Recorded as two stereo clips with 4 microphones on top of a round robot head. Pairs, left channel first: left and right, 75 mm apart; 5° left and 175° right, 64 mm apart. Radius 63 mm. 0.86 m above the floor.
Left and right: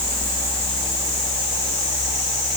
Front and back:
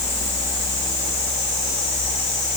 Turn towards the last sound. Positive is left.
No sound to turn to.